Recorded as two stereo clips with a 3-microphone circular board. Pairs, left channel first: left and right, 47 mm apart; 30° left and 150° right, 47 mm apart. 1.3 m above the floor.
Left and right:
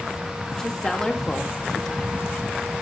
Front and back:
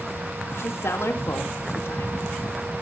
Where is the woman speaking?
15° left, 2 m.